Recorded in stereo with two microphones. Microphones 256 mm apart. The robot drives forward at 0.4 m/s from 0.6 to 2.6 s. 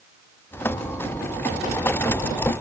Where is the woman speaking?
No woman speaking in this recording.